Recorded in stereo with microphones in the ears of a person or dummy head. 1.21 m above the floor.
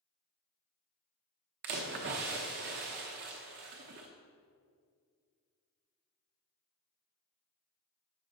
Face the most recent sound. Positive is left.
turn(degrees=-35)  # may be behind; listen again after turning